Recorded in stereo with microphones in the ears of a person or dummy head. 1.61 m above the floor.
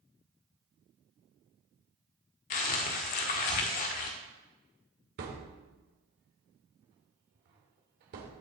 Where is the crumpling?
40° left (ahead or behind), 1.5 m.